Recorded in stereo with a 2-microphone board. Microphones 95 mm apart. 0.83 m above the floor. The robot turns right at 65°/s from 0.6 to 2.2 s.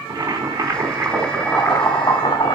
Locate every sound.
0.1 s boiling: 55° right, 2.5 m; by 2.6 s 50° left, 2.5 m